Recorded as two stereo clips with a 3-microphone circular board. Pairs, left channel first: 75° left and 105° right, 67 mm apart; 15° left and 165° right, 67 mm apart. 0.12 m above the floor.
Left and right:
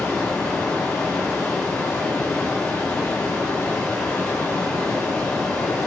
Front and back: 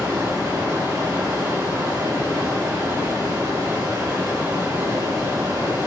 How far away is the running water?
About 5.5 m.